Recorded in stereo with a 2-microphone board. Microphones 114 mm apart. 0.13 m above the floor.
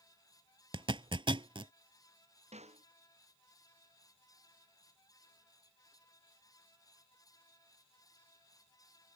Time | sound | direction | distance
0.7 | a zipper | 50° right (ahead or behind) | ?
2.5 | a snare drum | 70° right (ahead or behind) | ?